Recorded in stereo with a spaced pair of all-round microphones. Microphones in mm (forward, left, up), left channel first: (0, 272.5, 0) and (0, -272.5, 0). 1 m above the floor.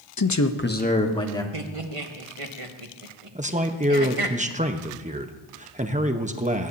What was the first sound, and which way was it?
A man speaking, 40° left (ahead or behind).